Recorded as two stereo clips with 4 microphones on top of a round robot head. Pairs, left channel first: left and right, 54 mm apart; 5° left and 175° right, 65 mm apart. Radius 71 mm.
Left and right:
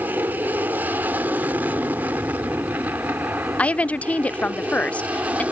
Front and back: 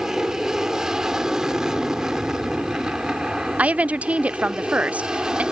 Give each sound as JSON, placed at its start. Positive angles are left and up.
{"t": 0.0, "sound": "an aircraft", "azimuth_deg": -100}
{"t": 3.6, "sound": "a woman speaking", "azimuth_deg": 135}